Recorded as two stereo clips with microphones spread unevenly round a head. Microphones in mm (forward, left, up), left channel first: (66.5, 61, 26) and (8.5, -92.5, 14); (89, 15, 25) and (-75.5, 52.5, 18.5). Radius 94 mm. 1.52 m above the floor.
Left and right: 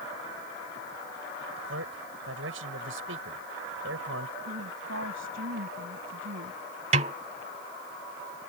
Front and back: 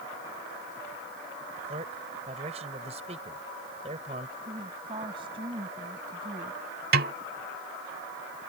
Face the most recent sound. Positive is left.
turn(degrees=-165)